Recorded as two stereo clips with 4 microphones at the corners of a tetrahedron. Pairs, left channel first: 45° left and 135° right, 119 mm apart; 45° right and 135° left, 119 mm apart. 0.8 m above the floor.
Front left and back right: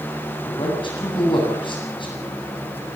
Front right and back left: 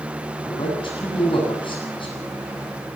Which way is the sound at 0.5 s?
Straight ahead.